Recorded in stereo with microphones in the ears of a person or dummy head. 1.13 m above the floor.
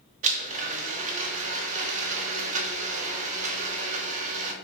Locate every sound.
0.2 s a blender: 45° right (ahead or behind), 0.9 m